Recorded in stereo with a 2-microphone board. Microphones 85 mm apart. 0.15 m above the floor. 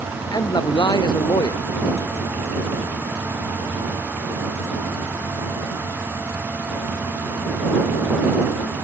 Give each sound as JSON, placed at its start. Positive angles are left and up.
{"t": 0.3, "sound": "a man speaking", "side_deg": 55}